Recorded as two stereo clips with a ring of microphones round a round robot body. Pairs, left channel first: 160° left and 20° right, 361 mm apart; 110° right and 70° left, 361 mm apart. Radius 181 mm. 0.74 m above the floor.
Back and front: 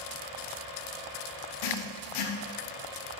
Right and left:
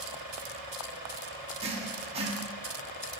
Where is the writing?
140° left, 0.8 m.